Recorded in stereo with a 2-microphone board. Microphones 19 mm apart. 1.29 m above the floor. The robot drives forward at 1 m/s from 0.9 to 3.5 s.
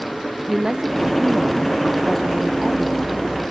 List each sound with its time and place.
0.5 s a woman speaking: 35° right (ahead or behind), 1.0 m; by 3.4 s 20° right (ahead or behind), 1.9 m